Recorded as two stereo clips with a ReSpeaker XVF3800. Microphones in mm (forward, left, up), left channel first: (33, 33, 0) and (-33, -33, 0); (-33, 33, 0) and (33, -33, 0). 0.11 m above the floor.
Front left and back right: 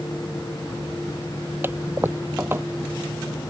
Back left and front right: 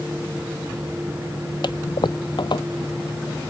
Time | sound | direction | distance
1.6 | a toilet flushing | 160° left | ?